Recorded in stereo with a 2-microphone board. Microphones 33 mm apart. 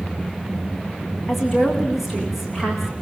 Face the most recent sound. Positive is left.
turn(degrees=-10)  # may be behind; listen again after turning